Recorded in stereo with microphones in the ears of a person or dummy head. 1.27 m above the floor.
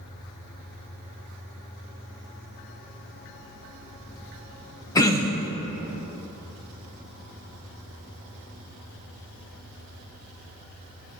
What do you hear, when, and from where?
5.0 s throat clearing: 15° left (ahead or behind), 0.6 m